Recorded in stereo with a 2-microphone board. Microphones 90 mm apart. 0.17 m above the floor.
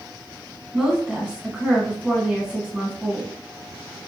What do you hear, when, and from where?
0.7 s a woman speaking: 10° right (ahead or behind), 2 m